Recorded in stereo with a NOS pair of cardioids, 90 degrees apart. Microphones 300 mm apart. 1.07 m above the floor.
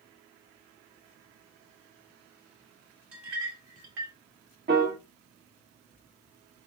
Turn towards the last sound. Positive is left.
turn(degrees=-35)